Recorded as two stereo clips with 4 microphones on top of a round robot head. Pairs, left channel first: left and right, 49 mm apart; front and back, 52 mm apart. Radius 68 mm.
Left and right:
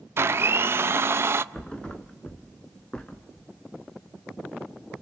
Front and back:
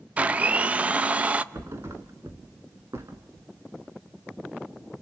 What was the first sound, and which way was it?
A blender, 120° right.